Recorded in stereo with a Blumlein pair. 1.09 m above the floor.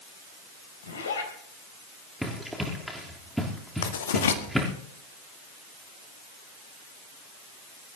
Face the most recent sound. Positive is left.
turn(degrees=65)